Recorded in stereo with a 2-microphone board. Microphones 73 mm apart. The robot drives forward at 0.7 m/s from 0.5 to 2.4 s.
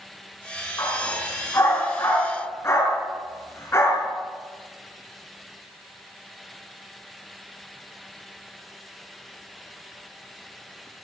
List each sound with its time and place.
0.8 s a dog barking: 45° left (ahead or behind), 4 m; by 4.1 s 35° left (ahead or behind), 4.5 m